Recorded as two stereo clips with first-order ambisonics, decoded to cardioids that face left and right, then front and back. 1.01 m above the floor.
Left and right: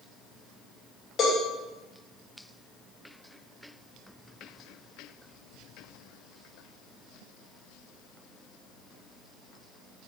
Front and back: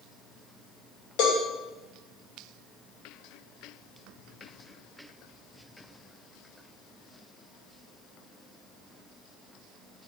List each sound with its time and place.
1.2 s a cowbell: 20° left, 2.5 m